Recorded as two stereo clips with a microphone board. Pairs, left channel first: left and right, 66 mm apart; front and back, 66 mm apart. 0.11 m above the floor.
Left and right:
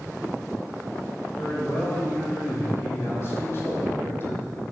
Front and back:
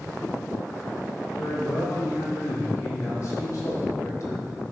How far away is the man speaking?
About 3.5 m.